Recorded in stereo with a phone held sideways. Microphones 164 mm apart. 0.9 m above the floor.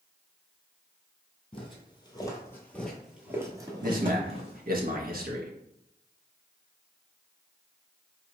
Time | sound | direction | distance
1.5 | footsteps | 35° left (ahead or behind) | 1.2 m
3.8 | a man speaking | 60° right (ahead or behind) | 0.7 m